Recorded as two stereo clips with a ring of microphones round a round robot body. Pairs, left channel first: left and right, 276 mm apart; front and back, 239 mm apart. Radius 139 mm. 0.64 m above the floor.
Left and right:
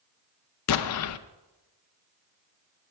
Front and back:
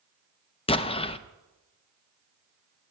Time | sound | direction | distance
0.7 | an explosion | 65° left | 0.5 m